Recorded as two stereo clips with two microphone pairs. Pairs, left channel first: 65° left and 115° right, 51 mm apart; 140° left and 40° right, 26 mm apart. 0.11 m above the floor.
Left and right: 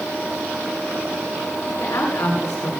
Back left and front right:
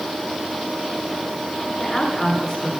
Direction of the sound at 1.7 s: 60° left.